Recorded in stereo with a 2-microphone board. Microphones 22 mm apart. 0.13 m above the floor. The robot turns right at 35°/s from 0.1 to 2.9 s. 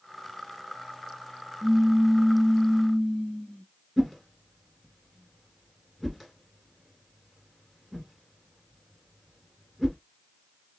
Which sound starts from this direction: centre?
A whoosh, at 4.0 s.